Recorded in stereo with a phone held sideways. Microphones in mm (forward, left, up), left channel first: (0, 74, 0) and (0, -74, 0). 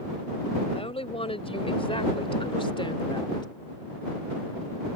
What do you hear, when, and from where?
0.7 s a woman speaking: 40° left (ahead or behind); by 3.5 s 30° left (ahead or behind)